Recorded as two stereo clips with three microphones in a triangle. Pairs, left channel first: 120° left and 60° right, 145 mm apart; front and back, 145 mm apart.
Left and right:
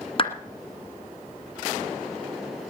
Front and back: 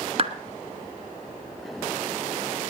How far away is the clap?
About 1.7 m.